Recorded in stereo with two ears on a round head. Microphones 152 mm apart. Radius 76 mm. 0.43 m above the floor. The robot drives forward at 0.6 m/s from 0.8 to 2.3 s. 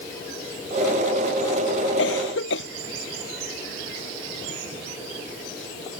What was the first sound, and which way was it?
A cough, 75° left (ahead or behind).